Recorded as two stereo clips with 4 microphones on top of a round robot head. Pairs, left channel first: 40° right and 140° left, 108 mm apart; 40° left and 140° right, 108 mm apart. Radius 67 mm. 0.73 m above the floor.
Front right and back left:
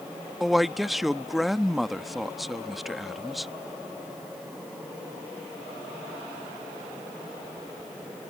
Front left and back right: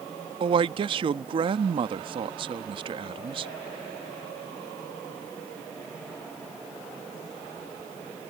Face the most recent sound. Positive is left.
turn(degrees=-135)